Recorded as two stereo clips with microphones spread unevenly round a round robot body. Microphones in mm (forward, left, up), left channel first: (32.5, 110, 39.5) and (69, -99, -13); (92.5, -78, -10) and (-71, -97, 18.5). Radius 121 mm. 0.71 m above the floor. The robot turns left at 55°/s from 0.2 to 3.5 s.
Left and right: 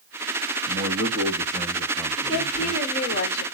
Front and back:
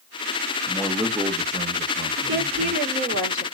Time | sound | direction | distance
0.7 | a man speaking | 65° right | 1.3 m
2.2 | a woman speaking | 160° right | 2.5 m